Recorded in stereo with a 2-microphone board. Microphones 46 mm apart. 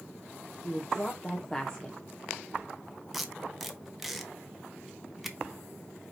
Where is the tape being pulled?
5° right (ahead or behind), 1.0 m.